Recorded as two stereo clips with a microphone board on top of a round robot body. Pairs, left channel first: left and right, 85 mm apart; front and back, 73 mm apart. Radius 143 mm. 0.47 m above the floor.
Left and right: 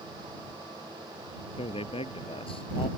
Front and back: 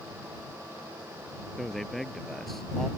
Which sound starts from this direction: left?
A man speaking, at 1.6 s.